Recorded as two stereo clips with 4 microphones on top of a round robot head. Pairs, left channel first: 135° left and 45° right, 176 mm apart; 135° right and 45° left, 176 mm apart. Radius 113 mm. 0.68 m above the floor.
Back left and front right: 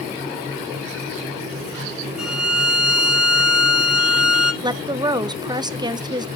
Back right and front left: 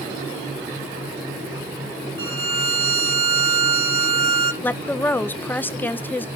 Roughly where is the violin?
Ahead left.